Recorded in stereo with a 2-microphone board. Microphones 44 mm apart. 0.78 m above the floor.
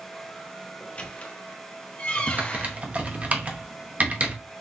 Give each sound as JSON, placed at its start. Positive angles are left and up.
{"t": 0.8, "sound": "a squeak", "side_deg": 30, "distance_m": 0.9}
{"t": 2.3, "sound": "typing on a keyboard", "side_deg": -30, "distance_m": 1.0}